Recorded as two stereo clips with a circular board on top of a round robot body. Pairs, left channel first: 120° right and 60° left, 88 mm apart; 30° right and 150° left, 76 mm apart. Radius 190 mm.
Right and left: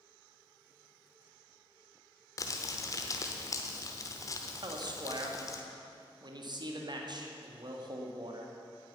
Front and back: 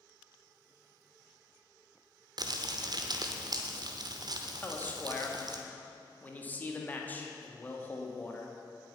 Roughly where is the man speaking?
Ahead left.